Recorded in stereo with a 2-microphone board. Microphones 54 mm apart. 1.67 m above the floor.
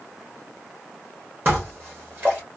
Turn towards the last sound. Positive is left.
turn(degrees=-35)  # may be behind; listen again after turning